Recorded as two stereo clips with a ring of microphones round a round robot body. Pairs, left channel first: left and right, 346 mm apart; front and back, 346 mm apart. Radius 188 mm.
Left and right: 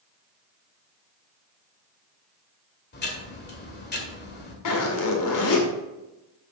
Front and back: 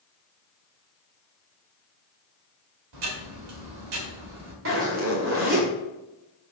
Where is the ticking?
150° left, 1.9 m.